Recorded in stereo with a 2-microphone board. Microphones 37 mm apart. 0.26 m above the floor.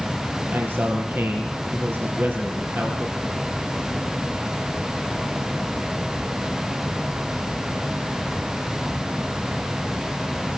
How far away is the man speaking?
About 5 m.